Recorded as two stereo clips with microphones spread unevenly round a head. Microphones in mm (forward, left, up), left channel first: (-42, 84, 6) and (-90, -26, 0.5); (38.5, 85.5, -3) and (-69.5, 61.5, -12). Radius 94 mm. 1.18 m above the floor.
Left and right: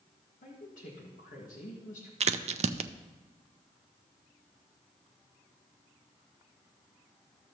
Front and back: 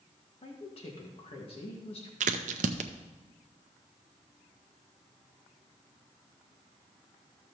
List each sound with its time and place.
0.4 s a woman speaking: 40° left, 1.7 m
2.2 s a crack: 145° right, 0.5 m